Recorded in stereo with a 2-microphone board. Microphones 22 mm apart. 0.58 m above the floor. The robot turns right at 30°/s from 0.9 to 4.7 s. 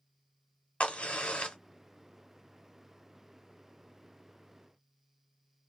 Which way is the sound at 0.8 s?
75° left (ahead or behind).